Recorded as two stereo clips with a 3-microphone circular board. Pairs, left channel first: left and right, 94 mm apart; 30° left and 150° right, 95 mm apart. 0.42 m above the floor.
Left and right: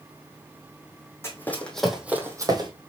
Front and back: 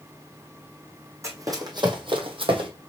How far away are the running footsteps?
About 1.5 m.